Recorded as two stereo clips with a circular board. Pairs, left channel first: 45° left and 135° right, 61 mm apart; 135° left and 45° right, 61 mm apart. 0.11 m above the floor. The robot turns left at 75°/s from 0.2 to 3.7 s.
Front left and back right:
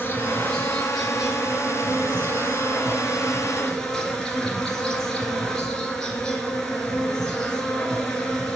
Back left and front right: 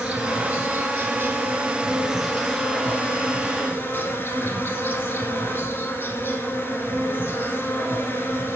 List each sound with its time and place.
0.0 s an insect: 20° left, 1.8 m; by 8.6 s 120° left, 1.8 m